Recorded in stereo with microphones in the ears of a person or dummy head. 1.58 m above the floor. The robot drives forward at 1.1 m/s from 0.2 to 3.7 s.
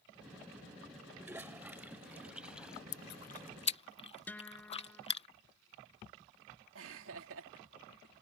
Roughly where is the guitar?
Centre.